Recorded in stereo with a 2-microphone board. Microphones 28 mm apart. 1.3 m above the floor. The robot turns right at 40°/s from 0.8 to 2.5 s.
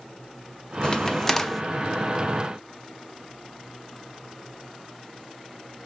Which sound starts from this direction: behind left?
A crack, at 0.8 s.